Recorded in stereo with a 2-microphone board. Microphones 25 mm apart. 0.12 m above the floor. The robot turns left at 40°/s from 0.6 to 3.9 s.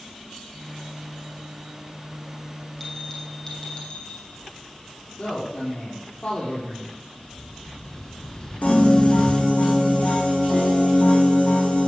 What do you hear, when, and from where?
2.8 s a bell: 170° left, 3 m; by 4.3 s 125° left, 3 m
5.2 s a man speaking: 50° left (ahead or behind), 4.5 m
7.2 s an explosion: 30° left (ahead or behind), 1.0 m
8.6 s a piano: 80° left, 3.5 m